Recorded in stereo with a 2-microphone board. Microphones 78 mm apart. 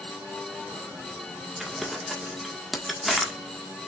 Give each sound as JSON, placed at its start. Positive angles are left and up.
{"t": 1.6, "sound": "crumpling", "side_deg": 0, "distance_m": 1.6}